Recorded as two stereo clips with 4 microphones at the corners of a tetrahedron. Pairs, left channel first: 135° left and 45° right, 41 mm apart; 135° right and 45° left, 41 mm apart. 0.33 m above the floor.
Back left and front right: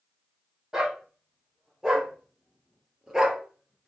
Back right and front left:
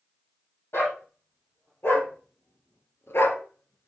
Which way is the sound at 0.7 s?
120° right.